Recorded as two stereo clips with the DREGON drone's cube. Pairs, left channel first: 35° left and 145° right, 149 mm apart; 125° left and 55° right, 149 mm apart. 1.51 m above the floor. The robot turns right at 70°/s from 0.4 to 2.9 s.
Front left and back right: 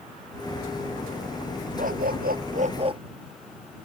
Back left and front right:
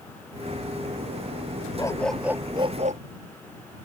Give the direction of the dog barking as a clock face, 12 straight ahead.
6 o'clock.